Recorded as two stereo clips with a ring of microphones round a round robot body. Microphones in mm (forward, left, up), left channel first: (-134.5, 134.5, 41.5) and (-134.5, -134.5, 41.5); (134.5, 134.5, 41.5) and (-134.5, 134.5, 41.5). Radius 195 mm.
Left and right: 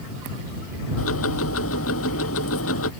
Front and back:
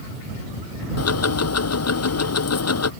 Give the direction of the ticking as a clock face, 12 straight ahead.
11 o'clock.